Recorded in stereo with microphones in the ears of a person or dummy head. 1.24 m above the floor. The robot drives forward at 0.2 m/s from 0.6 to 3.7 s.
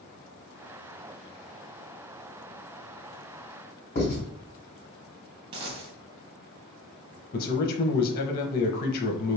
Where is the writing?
45° left (ahead or behind), 2 m.